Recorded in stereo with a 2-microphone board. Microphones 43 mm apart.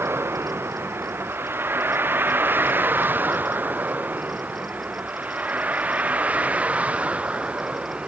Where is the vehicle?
65° right (ahead or behind); by 8.1 s 30° right (ahead or behind).